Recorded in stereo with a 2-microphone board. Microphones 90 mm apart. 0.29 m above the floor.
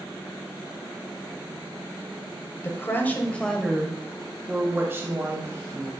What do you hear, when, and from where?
2.6 s a woman speaking: 30° left (ahead or behind), 1.1 m; by 5.9 s 40° right (ahead or behind), 1.5 m